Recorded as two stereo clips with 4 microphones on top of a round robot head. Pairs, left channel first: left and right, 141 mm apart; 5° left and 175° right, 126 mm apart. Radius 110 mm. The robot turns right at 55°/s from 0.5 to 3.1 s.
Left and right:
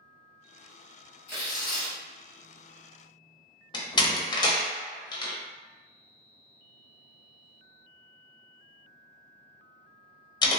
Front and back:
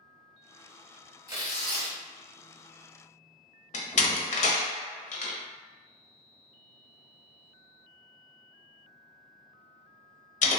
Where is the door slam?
30° left, 0.7 m.